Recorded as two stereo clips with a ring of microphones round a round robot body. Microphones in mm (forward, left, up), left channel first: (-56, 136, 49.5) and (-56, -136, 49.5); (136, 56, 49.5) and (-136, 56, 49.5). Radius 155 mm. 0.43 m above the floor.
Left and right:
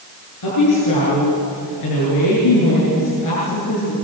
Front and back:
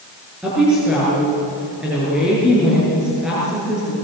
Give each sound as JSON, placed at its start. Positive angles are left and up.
{"t": 0.4, "sound": "a woman speaking", "azimuth_deg": 95, "distance_m": 8.5}